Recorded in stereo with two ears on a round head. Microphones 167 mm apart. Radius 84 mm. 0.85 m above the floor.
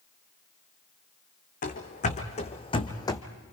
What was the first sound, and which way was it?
Running footsteps, 45° left (ahead or behind).